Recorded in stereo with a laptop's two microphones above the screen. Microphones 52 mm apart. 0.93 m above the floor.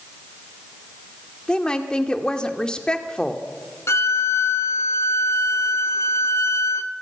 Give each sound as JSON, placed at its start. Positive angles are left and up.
{"t": 1.5, "sound": "a woman speaking", "side_deg": 15, "distance_m": 2.0}
{"t": 3.9, "sound": "a violin", "side_deg": 55, "distance_m": 0.8}